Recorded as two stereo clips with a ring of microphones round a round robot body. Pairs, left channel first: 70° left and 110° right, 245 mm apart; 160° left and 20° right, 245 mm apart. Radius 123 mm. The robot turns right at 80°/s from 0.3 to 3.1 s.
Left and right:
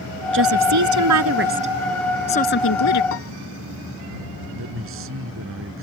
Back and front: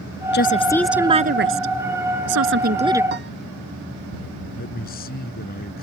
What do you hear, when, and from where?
0.3 s a woman speaking: 155° right; by 3.0 s 60° left
3.1 s a piano: 30° left
4.6 s a man speaking: 150° right